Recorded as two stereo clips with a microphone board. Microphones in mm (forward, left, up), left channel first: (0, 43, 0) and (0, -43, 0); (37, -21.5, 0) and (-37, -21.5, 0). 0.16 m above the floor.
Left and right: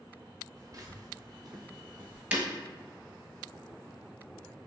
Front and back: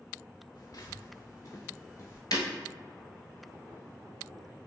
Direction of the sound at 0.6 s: 40° right.